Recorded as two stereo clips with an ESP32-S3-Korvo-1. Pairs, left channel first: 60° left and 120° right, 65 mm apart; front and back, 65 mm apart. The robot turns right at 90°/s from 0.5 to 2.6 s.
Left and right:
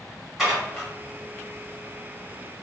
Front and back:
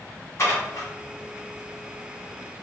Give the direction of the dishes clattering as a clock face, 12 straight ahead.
1 o'clock.